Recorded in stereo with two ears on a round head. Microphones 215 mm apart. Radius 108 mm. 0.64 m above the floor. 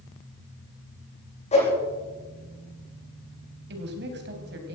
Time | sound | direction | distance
1.5 | a whoosh | 30° left (ahead or behind) | 7.5 m
3.7 | a woman speaking | 50° right (ahead or behind) | 3.5 m